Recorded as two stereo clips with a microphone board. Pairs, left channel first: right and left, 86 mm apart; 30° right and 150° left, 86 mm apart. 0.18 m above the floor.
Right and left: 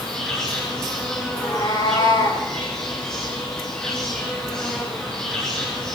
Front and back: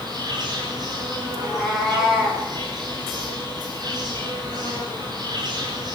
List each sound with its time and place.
0.0 s an insect: 170° right, 9 m
1.4 s a cat meowing: 125° right, 8.5 m